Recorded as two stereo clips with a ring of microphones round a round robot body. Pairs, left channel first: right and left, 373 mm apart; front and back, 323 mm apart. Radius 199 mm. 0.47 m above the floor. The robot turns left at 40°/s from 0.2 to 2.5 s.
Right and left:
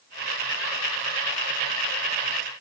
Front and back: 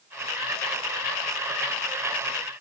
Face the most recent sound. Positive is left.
No sound to turn to.